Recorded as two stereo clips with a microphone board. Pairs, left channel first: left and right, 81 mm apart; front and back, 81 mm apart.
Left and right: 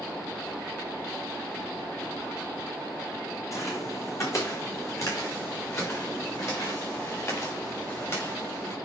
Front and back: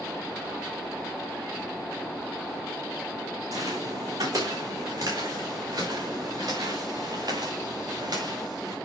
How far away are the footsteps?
About 3 m.